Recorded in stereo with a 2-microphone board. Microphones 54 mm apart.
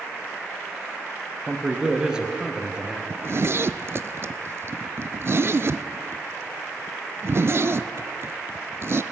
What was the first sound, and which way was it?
A man speaking, 15° right (ahead or behind).